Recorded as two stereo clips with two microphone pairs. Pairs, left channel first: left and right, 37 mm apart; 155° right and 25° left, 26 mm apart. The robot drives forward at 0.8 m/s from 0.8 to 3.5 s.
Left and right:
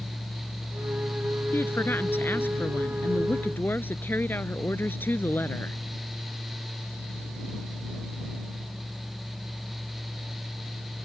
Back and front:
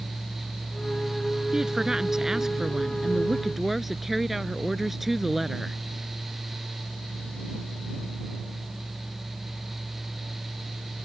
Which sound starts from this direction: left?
A woman speaking, at 1.5 s.